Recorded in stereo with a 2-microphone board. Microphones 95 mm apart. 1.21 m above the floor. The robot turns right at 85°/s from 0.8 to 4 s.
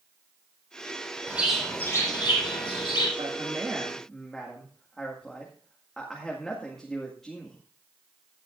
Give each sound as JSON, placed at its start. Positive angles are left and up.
{"t": 1.3, "sound": "a bird", "azimuth_deg": -20, "distance_m": 4.0}
{"t": 3.2, "sound": "a man speaking", "azimuth_deg": -65, "distance_m": 1.9}